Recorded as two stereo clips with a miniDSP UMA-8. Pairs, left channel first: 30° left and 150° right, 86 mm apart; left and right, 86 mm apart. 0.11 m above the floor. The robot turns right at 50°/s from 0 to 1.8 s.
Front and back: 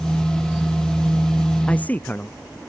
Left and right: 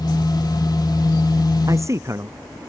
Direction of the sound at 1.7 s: 45° right.